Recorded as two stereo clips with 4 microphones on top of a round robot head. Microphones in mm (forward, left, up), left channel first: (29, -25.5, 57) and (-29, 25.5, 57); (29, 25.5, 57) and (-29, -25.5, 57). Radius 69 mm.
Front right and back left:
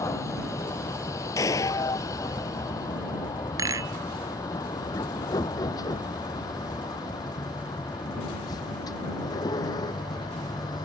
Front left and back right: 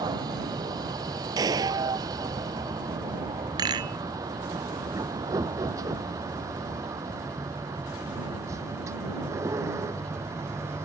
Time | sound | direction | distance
0.0 | a vehicle | 95° right | ?
1.4 | a gunshot | 95° right | ?
3.6 | a rattle | 175° right | ?